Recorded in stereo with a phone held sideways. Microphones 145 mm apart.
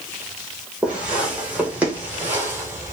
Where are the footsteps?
5° right (ahead or behind), 3 m; by 2.9 s 20° right (ahead or behind), 1.7 m.